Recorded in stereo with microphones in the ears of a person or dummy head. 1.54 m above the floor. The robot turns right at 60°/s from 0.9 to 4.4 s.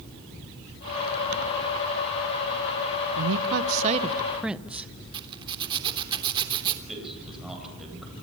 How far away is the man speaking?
About 9 m.